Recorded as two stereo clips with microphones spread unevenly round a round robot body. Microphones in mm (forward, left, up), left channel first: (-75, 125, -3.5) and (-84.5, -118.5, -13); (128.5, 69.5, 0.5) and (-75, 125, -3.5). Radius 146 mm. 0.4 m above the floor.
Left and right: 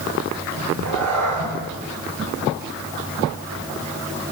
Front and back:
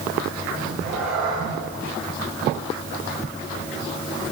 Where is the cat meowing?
110° right, 7.5 m.